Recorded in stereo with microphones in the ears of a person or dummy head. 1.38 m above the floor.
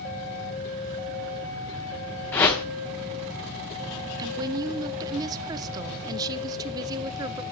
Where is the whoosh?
10° left (ahead or behind), 1.0 m.